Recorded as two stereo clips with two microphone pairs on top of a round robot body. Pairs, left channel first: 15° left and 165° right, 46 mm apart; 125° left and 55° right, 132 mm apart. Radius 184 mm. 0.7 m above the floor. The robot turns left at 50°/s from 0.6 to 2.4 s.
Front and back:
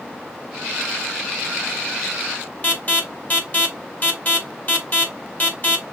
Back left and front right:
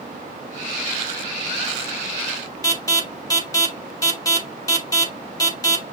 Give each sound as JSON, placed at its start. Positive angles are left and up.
{"t": 2.6, "sound": "an alarm", "azimuth_deg": 65, "distance_m": 3.0}